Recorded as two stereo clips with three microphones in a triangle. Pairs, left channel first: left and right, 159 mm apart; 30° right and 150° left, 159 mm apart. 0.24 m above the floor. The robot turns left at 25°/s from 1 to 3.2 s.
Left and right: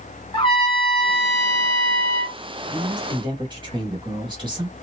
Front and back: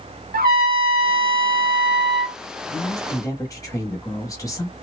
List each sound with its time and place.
0.3 s a trumpet: 145° left, 0.7 m; by 2.4 s 110° left, 0.7 m
2.7 s a woman speaking: 60° right, 1.1 m; by 4.7 s 75° right, 1.1 m